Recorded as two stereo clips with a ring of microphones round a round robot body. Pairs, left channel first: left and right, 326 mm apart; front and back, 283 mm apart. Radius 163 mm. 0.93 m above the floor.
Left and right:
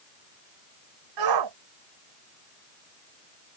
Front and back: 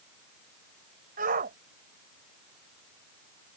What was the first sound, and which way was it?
A shout, 115° right.